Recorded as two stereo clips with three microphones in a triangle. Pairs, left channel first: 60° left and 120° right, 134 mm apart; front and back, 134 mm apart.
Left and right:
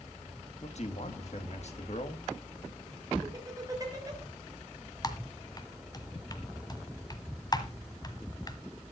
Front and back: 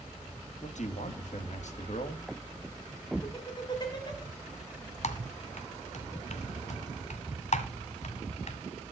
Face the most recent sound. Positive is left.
turn(degrees=5)